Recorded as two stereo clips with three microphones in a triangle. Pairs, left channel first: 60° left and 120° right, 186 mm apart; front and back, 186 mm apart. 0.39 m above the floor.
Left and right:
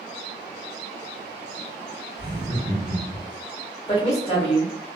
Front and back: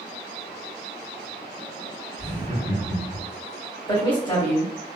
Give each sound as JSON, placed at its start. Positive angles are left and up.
{"t": 2.2, "sound": "laughter", "azimuth_deg": -175, "distance_m": 1.5}
{"t": 3.9, "sound": "a woman speaking", "azimuth_deg": 40, "distance_m": 1.1}